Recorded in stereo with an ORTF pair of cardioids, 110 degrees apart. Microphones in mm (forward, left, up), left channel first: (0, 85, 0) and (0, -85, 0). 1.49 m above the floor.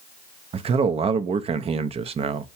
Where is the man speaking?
35° right, 0.6 m.